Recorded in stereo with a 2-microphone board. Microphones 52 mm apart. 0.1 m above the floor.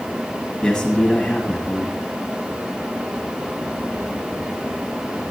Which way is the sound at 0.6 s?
10° left (ahead or behind).